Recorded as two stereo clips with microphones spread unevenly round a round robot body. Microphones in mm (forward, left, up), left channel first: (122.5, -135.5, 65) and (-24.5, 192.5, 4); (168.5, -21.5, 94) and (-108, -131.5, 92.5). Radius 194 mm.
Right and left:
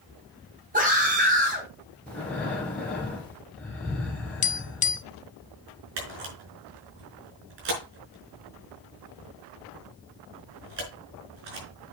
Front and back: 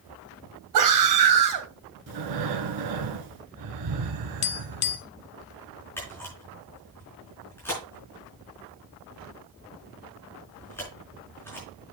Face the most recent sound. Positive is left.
turn(degrees=105)